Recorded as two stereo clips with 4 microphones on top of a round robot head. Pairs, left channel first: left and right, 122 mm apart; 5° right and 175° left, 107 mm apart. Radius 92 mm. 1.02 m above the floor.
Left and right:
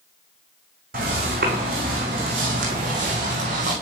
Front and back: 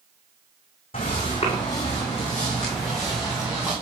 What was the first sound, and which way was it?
Footsteps, 65° right.